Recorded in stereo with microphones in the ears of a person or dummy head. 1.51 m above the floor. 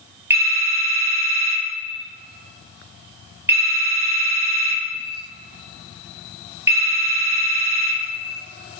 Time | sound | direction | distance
0.3 | a phone ringing | 10° right (ahead or behind) | 1.3 m